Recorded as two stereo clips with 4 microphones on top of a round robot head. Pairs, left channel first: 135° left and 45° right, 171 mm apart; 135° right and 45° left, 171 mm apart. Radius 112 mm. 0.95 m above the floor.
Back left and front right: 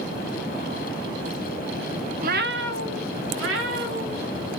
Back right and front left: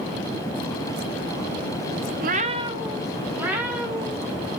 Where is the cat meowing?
5° left, 0.6 m; by 4.5 s 40° right, 3 m.